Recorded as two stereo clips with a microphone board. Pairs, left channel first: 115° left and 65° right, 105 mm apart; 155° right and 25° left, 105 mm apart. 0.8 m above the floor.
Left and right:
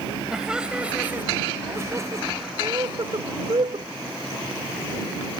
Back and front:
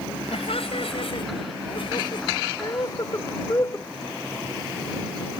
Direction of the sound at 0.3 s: 150° right.